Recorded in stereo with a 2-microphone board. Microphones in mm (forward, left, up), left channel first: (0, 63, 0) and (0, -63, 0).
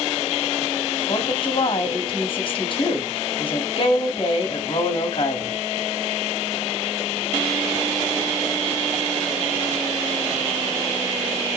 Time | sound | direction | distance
1.1 | a woman speaking | 45° left (ahead or behind) | 2.5 m